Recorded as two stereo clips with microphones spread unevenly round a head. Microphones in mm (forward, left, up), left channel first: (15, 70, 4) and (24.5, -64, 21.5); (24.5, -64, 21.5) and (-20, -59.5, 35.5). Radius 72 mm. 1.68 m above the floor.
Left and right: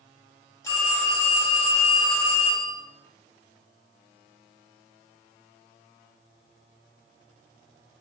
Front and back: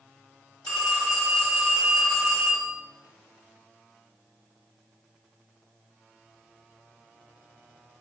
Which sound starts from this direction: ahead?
A phone ringing, at 0.6 s.